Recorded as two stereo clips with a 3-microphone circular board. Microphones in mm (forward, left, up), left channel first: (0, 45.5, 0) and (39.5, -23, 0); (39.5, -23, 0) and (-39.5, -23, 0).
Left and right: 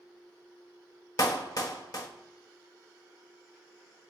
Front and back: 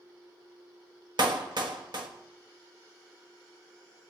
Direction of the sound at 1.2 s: 160° left.